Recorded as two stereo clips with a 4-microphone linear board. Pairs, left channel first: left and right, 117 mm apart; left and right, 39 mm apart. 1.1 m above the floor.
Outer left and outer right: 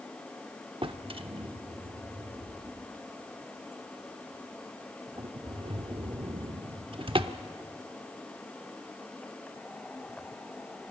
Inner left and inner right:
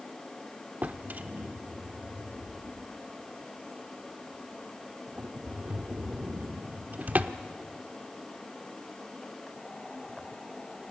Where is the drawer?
50° right (ahead or behind), 0.9 m.